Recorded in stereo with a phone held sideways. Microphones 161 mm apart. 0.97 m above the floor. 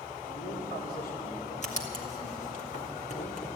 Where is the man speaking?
75° left (ahead or behind), 3.5 m.